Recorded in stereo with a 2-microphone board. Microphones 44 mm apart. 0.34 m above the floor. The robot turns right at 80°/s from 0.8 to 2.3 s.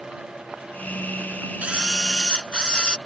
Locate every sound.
1.6 s a camera shutter: 35° right; by 3.0 s 20° left